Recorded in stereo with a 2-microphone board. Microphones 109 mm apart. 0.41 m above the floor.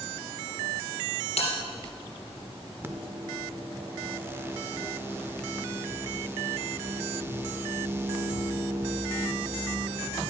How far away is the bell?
About 3.5 m.